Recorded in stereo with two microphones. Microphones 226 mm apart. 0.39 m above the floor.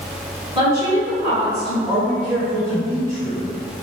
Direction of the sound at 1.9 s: 15° right (ahead or behind).